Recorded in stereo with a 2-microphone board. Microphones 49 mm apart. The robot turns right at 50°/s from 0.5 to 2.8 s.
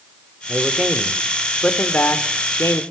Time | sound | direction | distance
0.5 | a man speaking | 35° right | 2 m